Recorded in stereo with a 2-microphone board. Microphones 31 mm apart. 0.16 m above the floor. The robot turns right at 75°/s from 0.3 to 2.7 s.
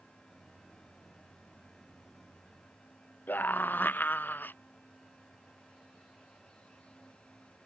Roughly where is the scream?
Left.